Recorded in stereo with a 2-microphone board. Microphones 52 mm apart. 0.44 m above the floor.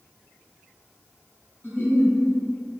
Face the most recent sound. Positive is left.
turn(degrees=50)  # may be behind; listen again after turning